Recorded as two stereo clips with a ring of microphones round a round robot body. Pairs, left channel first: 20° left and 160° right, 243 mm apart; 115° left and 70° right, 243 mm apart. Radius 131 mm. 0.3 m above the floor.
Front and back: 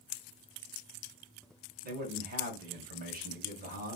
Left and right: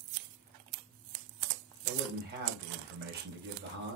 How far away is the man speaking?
About 1.8 m.